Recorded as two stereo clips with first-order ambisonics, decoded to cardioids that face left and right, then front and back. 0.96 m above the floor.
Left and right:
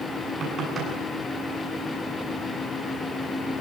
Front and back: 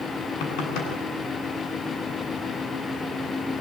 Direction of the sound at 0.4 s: 25° right.